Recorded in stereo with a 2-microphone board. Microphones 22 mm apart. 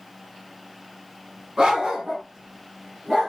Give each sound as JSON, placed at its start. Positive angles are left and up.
{"t": 1.6, "sound": "a dog barking", "side_deg": -30, "distance_m": 1.5}